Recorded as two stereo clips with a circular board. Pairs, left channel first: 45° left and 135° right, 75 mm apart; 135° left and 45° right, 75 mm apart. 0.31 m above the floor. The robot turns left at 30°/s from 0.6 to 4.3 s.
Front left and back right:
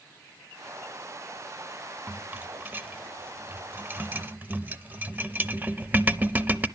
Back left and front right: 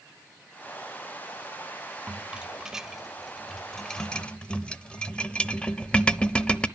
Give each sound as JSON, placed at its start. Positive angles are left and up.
{"t": 2.1, "sound": "a rattle", "azimuth_deg": -100, "distance_m": 0.6}